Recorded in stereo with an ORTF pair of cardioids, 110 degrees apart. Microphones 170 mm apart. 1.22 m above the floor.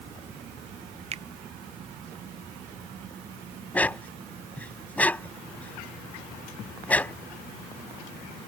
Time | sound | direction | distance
1.1 | a finger snap | 40° right | ?
3.7 | a dog barking | 10° left | ?